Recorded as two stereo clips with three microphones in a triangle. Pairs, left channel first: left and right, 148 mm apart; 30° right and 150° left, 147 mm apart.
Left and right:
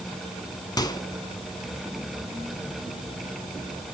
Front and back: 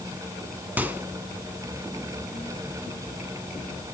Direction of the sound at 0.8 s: 90° left.